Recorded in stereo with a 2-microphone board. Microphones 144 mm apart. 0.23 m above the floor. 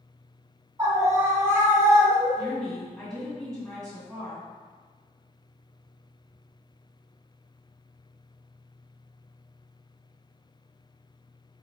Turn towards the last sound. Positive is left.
turn(degrees=5)  # may be behind; listen again after turning